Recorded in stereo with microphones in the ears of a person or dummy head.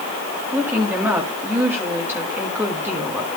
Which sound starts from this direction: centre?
A woman speaking, at 0.5 s.